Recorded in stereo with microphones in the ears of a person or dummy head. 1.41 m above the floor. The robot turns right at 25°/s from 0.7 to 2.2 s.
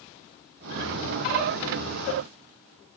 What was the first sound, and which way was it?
Only background noise.